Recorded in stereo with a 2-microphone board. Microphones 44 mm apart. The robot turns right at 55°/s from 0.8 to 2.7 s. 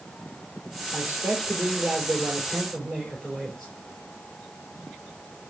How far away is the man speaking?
About 3.5 m.